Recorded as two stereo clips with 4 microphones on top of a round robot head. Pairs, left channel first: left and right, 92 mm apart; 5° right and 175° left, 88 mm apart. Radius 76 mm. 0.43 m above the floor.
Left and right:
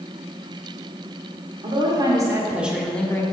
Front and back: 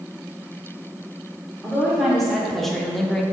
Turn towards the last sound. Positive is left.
turn(degrees=75)